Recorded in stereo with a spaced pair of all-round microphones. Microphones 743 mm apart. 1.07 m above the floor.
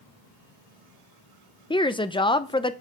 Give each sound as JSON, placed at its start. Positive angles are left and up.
{"t": 1.7, "sound": "a woman speaking", "side_deg": 10, "distance_m": 0.5}